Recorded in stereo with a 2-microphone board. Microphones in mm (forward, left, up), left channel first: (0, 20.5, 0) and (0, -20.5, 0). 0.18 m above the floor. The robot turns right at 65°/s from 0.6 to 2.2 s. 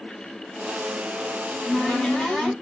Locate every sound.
1.4 s a cupboard door: 15° left (ahead or behind), 1.4 m; by 2.5 s 20° left (ahead or behind), 1.4 m